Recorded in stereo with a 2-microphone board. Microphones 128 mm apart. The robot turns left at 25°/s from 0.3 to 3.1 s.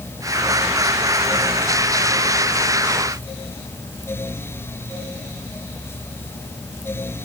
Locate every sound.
Only background noise.